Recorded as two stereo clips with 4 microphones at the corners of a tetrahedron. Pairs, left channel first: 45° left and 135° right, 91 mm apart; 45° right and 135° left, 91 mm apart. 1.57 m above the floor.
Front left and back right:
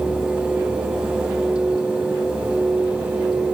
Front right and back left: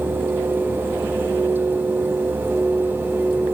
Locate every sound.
Only background noise.